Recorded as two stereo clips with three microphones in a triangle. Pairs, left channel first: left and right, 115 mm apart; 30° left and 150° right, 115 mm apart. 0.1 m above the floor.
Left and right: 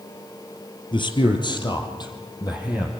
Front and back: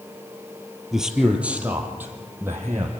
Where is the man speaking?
125° left, 2.5 m; by 2.9 s 145° left, 4.5 m.